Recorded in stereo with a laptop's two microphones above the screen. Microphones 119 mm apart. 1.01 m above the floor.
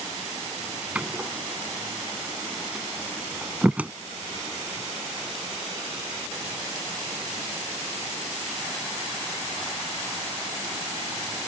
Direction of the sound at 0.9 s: 10° right (ahead or behind).